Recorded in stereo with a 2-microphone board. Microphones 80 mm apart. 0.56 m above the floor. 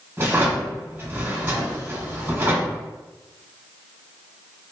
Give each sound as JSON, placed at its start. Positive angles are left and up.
{"t": 0.2, "sound": "a drawer", "side_deg": -30, "distance_m": 1.3}